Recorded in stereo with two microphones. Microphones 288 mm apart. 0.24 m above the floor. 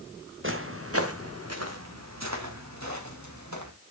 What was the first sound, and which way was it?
Footsteps, 45° right (ahead or behind).